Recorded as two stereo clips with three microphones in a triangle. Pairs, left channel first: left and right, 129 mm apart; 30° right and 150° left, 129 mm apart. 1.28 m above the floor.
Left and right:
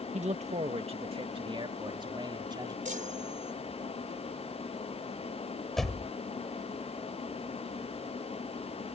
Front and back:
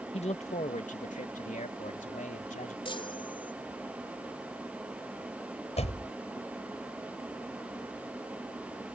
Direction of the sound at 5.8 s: Straight ahead.